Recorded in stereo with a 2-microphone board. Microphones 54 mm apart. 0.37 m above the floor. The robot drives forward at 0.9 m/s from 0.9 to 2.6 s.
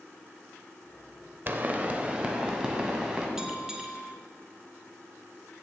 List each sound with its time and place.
1.5 s a pop: 35° right (ahead or behind), 0.6 m; by 3.3 s 15° right (ahead or behind), 1.4 m
3.4 s a bell: 10° right (ahead or behind), 1.0 m